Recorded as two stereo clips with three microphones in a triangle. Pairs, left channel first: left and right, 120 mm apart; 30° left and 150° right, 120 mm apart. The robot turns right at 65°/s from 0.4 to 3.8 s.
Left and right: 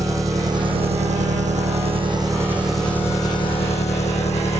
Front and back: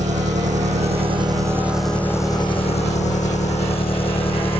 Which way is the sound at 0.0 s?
155° right.